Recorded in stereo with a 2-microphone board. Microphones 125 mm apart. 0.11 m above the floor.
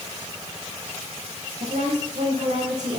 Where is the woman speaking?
70° right (ahead or behind), 6.5 m.